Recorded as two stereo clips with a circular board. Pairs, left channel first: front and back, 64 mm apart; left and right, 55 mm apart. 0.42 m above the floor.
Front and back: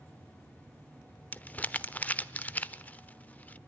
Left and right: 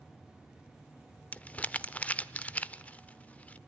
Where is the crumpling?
45° left, 0.5 m.